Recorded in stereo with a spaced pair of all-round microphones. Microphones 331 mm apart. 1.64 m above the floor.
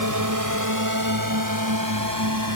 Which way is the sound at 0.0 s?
65° right (ahead or behind).